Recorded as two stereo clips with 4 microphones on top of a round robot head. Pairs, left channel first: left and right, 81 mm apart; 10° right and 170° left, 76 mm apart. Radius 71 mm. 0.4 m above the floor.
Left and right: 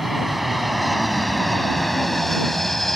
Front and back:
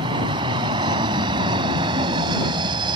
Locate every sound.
0.0 s an aircraft: straight behind; by 3.0 s 175° left